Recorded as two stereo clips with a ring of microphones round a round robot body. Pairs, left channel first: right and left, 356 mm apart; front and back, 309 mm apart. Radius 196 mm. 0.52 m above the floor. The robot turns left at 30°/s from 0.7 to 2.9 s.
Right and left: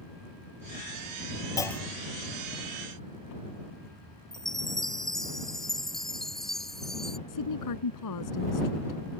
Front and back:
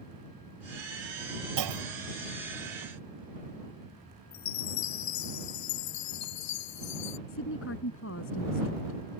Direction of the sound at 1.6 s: 170° right.